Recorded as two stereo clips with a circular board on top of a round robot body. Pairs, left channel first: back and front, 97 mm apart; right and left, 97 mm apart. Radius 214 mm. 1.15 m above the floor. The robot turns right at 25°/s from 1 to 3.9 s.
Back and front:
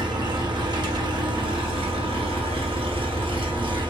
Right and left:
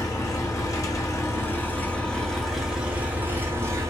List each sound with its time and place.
0.0 s an engine running: 35° right, 0.8 m; by 3.9 s 35° left, 0.8 m